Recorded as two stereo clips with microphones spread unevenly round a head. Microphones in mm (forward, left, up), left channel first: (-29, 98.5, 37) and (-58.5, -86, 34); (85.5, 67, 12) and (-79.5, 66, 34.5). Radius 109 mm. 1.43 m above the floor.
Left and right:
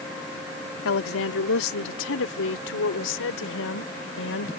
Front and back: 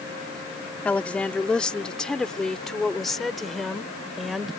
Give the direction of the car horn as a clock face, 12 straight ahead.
No car horn in this recording.